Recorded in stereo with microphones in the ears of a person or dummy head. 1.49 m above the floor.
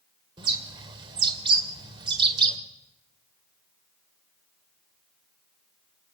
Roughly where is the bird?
Right.